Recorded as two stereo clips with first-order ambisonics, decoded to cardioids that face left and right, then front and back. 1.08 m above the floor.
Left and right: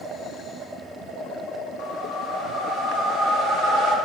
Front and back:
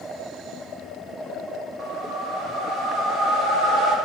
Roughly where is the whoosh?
Behind left.